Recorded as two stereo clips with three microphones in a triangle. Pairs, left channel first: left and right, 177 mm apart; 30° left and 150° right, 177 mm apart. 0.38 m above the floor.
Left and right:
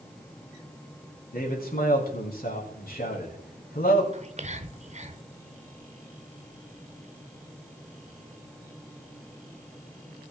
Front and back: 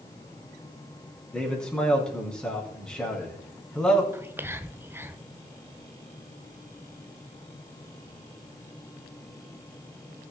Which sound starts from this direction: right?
Whispering, at 4.1 s.